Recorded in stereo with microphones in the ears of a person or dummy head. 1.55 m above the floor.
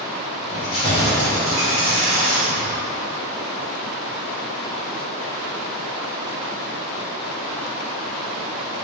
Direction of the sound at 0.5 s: 40° left (ahead or behind).